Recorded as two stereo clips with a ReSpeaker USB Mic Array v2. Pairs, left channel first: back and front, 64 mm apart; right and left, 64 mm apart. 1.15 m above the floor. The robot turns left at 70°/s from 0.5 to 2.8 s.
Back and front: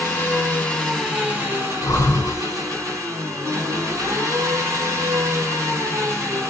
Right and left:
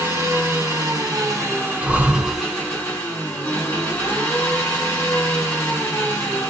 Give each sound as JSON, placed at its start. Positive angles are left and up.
{"t": 0.0, "sound": "an engine running", "azimuth_deg": 125, "distance_m": 2.5}
{"t": 1.8, "sound": "breathing", "azimuth_deg": 155, "distance_m": 0.8}